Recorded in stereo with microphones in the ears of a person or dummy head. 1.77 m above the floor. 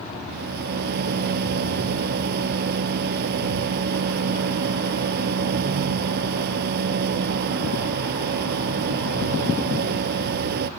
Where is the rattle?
55° right (ahead or behind).